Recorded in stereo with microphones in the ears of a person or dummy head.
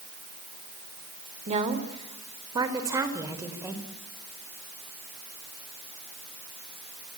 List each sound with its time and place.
1.5 s a woman speaking: 40° right (ahead or behind), 3.5 m; by 3.9 s 10° right (ahead or behind), 4.5 m